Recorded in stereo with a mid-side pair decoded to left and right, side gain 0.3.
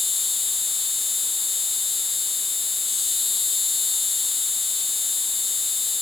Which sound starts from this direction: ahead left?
An insect, at 0.0 s.